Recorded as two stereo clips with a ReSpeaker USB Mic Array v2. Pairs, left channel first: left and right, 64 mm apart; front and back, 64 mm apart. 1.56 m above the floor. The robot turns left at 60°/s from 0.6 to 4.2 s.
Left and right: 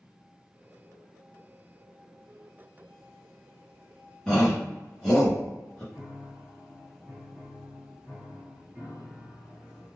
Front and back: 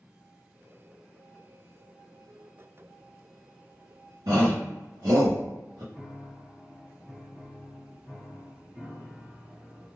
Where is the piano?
160° right, 1.6 m.